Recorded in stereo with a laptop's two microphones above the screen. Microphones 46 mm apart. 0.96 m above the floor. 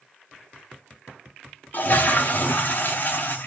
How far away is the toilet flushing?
About 0.7 m.